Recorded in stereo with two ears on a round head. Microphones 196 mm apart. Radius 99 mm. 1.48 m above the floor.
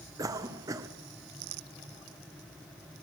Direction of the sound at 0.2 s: 15° right (ahead or behind).